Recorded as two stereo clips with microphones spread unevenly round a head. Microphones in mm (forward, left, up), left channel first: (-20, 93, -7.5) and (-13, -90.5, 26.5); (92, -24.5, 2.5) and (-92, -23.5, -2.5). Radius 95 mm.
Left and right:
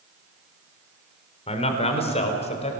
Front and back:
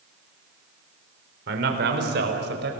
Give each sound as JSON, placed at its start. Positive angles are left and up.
{"t": 1.5, "sound": "a man speaking", "azimuth_deg": 150, "distance_m": 4.0}